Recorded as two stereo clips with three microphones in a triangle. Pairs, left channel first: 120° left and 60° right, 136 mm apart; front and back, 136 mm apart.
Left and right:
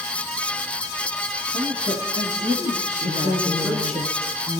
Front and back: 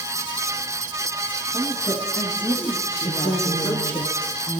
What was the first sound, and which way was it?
A woman speaking, 90° right.